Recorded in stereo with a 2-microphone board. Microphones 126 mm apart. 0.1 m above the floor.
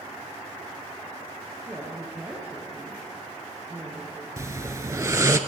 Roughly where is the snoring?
Right.